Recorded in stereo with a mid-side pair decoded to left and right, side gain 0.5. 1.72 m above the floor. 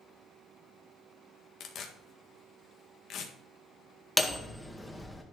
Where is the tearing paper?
65° left, 1.7 m.